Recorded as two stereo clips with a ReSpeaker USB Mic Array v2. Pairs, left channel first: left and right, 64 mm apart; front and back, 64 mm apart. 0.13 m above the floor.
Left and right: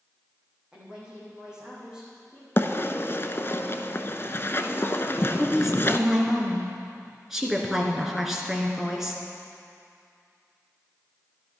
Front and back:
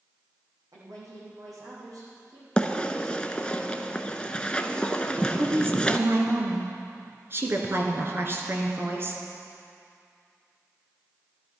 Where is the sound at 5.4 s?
170° right, 2.0 m.